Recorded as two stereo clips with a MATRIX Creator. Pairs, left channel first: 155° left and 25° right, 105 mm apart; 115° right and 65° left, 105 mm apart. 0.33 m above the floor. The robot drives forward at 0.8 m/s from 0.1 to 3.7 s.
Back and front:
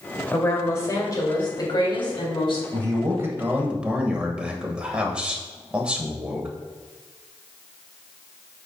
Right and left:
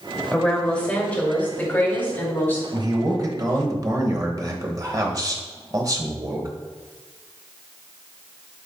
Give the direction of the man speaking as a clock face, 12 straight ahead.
11 o'clock.